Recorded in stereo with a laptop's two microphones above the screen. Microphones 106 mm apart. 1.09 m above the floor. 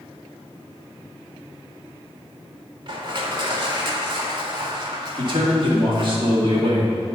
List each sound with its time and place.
2.9 s crushing: 50° right (ahead or behind), 1.6 m
5.2 s a man speaking: 50° right (ahead or behind), 2 m